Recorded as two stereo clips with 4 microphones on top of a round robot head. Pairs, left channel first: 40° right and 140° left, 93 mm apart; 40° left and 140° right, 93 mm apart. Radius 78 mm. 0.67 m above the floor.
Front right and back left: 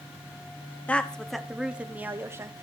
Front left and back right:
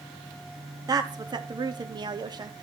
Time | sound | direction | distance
0.9 | a woman speaking | 110° right | 1.1 m